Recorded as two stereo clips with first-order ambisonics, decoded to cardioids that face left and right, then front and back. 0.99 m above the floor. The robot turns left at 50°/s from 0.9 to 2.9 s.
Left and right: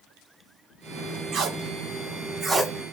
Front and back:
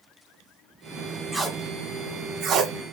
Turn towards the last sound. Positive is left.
turn(degrees=-175)